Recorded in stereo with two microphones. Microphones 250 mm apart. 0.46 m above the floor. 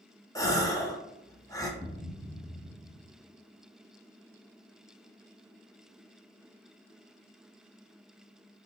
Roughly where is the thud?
Centre.